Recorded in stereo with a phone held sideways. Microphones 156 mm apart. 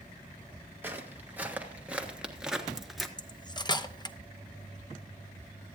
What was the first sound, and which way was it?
Footsteps, 15° right (ahead or behind).